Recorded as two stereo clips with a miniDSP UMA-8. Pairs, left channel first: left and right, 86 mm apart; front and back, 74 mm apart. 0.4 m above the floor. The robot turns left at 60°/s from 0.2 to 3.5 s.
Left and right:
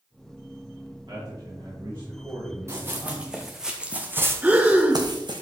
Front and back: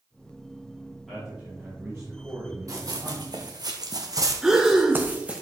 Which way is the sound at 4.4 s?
115° right.